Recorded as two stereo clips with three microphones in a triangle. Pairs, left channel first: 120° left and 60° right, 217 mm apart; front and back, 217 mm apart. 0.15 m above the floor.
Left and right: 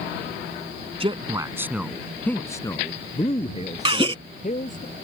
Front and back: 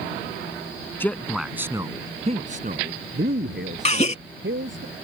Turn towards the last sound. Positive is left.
turn(degrees=-20)